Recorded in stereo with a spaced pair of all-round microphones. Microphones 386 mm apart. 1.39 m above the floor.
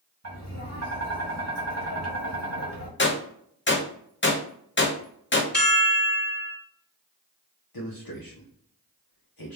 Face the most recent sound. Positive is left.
turn(degrees=65)  # may be behind; listen again after turning